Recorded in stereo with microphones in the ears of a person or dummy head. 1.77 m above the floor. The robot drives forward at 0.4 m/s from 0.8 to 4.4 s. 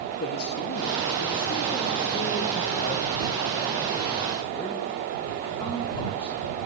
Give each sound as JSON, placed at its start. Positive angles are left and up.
{"t": 0.2, "sound": "a man speaking", "side_deg": 55, "distance_m": 1.7}